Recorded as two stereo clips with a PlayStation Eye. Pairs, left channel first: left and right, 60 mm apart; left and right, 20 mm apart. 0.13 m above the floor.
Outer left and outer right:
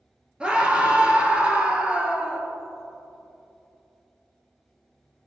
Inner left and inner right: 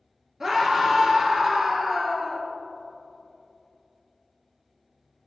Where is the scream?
20° right (ahead or behind), 1.9 m.